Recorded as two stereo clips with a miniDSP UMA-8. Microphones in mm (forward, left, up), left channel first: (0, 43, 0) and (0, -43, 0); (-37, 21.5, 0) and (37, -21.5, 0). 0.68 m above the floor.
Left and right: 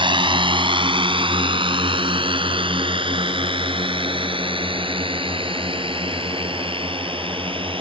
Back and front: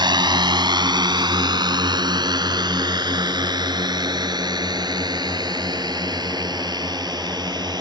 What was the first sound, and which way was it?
A drone, 65° right.